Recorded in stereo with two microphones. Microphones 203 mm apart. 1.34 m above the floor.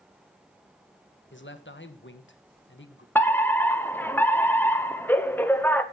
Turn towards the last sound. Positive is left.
turn(degrees=10)  # may be behind; listen again after turning